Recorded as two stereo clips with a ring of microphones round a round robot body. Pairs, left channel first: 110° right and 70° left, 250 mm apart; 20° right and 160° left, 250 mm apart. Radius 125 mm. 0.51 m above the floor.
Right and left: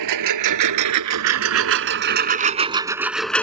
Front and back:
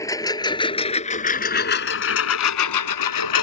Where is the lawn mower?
55° left; by 3.4 s 30° right.